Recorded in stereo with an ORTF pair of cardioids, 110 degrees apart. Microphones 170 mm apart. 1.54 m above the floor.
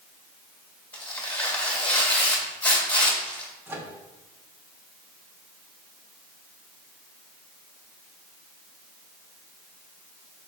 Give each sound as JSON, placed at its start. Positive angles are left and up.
{"t": 0.9, "sound": "tearing paper", "azimuth_deg": 10, "distance_m": 1.8}
{"t": 3.7, "sound": "a microwave", "azimuth_deg": -15, "distance_m": 1.2}